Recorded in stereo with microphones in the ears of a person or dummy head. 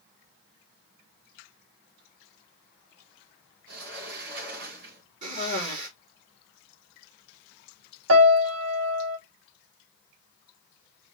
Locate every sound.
3.7 s a sliding door: 65° right (ahead or behind), 3 m
5.2 s a cough: 50° right (ahead or behind), 3.5 m
8.1 s a piano: 85° right, 1.3 m